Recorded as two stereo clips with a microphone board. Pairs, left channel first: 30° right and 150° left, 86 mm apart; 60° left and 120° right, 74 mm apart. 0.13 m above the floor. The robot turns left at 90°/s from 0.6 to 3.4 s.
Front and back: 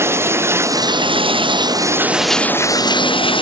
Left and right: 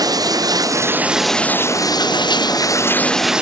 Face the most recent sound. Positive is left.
turn(degrees=-40)